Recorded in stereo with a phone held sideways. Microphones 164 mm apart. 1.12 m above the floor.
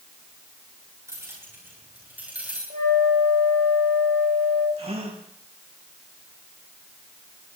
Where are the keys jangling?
15° right (ahead or behind), 10 m; by 2.6 s 5° right (ahead or behind), 10 m.